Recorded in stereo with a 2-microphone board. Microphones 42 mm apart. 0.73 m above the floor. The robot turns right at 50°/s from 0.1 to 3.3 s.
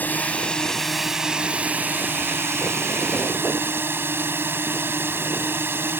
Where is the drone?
135° left; by 6.0 s 65° right.